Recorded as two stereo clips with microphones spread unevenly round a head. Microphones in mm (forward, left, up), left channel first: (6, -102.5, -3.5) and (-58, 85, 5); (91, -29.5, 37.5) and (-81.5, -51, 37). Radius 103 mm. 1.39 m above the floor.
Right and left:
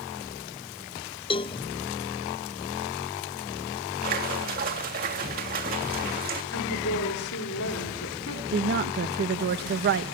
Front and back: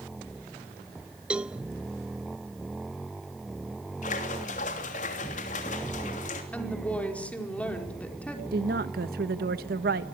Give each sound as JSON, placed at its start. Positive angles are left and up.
{"t": 1.3, "sound": "a cowbell", "azimuth_deg": -95, "distance_m": 0.5}
{"t": 4.0, "sound": "a splash", "azimuth_deg": 60, "distance_m": 3.0}
{"t": 6.5, "sound": "a woman speaking", "azimuth_deg": -75, "distance_m": 4.5}
{"t": 8.5, "sound": "a woman speaking", "azimuth_deg": 140, "distance_m": 1.3}